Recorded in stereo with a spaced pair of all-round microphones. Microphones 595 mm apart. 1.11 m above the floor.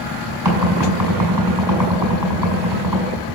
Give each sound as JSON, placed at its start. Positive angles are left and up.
{"t": 0.5, "sound": "knocking", "side_deg": -40, "distance_m": 6.5}